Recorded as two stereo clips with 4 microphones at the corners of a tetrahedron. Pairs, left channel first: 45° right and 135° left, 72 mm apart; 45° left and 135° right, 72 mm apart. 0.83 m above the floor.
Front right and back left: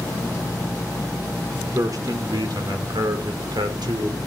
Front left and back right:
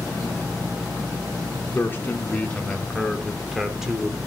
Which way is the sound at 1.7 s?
105° left.